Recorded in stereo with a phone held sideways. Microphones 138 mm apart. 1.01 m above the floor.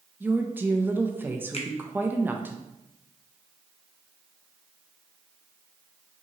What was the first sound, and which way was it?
A woman speaking, 15° right (ahead or behind).